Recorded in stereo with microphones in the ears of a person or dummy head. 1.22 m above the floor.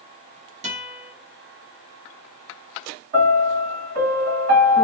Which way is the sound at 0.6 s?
35° right (ahead or behind).